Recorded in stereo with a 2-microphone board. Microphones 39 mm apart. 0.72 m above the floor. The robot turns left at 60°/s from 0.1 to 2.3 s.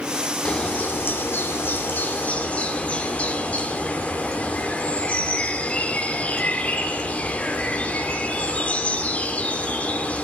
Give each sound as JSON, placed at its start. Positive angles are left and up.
{"t": 0.5, "sound": "a bird", "azimuth_deg": 150, "distance_m": 2.0}